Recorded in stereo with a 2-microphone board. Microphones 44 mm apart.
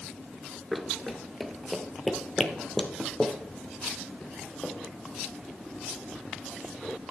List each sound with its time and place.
0.7 s running footsteps: centre (ahead or behind), 0.8 m; by 4.7 s 10° left (ahead or behind), 2.5 m